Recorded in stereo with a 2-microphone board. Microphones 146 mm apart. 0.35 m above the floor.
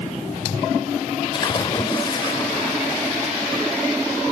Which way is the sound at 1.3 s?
35° left (ahead or behind).